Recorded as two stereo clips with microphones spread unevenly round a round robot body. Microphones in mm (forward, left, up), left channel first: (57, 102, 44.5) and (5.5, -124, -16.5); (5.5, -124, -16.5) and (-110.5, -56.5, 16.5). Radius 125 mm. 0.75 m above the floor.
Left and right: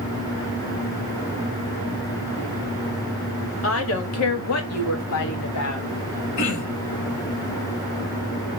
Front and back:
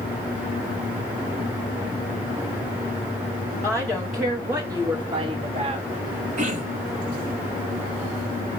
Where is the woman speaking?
40° left, 1.9 m; by 5.9 s 105° left, 1.5 m.